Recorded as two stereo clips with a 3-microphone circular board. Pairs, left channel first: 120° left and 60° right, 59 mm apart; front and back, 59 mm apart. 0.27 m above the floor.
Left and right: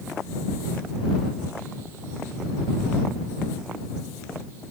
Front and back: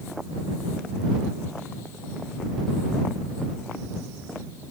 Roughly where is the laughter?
I don't hear laughter.